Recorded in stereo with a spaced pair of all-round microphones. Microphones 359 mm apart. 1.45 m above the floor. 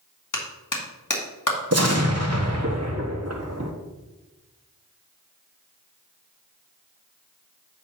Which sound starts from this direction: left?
A clap, at 0.3 s.